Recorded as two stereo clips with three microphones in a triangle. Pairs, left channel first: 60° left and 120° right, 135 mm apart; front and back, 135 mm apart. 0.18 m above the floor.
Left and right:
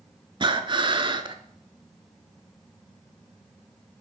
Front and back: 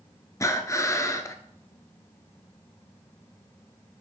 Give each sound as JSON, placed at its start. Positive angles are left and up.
{"t": 0.4, "sound": "breathing", "azimuth_deg": -65, "distance_m": 0.5}